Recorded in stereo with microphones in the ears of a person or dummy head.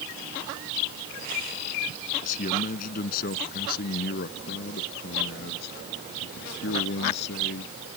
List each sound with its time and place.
2.2 s a man speaking: 50° left (ahead or behind); by 7.7 s 70° left (ahead or behind)